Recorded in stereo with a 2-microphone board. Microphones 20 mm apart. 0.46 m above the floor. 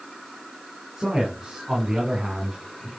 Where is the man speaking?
30° right (ahead or behind), 6 m.